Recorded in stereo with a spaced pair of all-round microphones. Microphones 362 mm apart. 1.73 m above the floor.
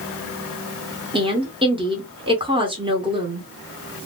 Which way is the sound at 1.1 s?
15° right (ahead or behind).